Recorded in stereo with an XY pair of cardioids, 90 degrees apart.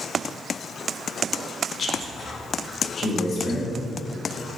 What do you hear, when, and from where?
1.8 s a man speaking: 50° left, 1.5 m; by 3.7 s 60° left, 3 m